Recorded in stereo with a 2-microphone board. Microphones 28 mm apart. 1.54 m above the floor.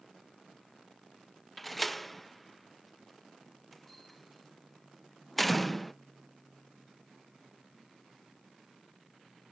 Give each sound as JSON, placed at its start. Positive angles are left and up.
{"t": 1.6, "sound": "a door slam", "side_deg": 5}